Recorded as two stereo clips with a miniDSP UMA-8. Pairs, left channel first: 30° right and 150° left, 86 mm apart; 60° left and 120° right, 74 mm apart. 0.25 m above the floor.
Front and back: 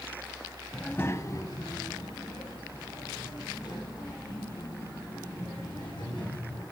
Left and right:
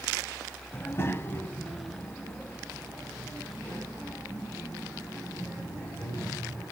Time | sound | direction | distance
0.7 | a child speaking | 55° left | 0.6 m